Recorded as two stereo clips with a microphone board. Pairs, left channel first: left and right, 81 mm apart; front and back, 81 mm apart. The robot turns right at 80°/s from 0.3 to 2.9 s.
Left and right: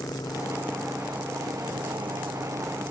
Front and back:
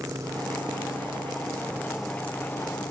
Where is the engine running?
130° left; by 2.9 s 20° right.